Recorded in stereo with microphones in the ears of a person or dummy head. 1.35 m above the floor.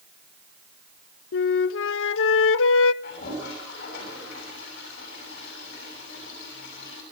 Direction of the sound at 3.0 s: 50° left (ahead or behind).